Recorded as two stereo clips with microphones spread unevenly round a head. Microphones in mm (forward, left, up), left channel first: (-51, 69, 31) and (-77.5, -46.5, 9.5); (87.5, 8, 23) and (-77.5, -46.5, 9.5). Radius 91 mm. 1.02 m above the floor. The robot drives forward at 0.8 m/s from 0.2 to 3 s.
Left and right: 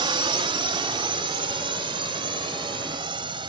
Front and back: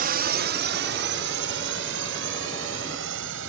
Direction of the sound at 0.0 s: 140° right.